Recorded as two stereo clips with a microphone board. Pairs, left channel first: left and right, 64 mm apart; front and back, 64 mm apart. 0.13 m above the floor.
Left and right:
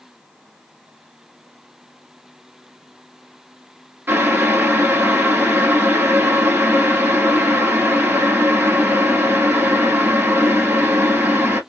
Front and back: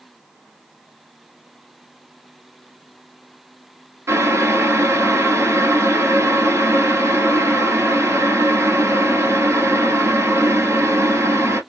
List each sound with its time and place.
4.1 s boiling: 145° right, 1.1 m